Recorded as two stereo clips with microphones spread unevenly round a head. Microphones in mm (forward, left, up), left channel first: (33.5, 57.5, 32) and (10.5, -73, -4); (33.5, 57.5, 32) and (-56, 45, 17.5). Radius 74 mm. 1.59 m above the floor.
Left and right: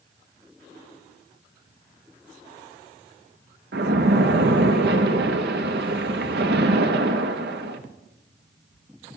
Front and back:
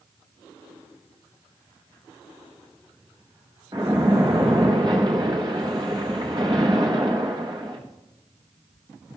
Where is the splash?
105° right, 1.2 m.